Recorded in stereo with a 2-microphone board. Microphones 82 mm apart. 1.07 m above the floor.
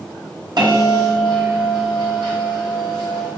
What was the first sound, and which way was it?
A bell, 60° right (ahead or behind).